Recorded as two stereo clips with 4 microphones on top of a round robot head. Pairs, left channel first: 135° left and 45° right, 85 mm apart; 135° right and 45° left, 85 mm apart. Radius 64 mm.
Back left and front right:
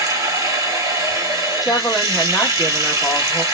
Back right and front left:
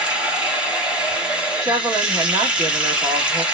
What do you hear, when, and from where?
0.0 s running water: 25° right, 1.3 m
1.6 s a woman speaking: 35° left, 1.4 m